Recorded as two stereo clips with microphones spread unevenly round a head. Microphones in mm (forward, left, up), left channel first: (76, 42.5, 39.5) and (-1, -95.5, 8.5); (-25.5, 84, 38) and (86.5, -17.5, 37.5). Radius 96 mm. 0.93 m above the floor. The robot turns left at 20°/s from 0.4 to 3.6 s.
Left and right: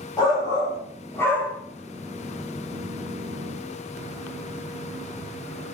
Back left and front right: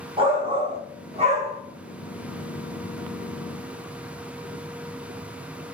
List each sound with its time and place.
0.2 s a shout: 5° right, 1.0 m; by 1.6 s 30° right, 1.0 m